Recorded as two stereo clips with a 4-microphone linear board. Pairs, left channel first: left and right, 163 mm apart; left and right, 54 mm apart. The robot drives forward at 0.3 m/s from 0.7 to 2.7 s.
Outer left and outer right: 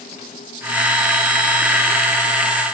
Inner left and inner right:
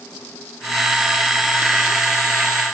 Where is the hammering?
I don't hear hammering.